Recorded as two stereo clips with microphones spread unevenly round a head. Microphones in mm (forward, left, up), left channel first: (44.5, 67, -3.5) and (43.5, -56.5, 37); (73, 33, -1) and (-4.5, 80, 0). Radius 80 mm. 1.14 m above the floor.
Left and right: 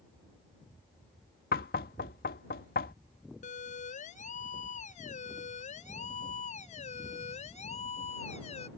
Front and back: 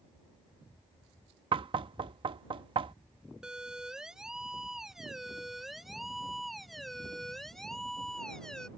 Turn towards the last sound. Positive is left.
turn(degrees=55)